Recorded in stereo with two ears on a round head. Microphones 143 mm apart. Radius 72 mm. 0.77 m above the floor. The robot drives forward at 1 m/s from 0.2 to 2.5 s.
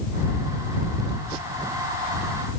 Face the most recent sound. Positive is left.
No sound to turn to.